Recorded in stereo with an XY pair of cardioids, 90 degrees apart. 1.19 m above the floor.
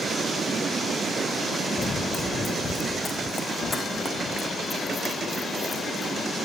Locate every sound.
1.8 s running footsteps: 35° left, 3.5 m; by 6.3 s 40° left, 7.5 m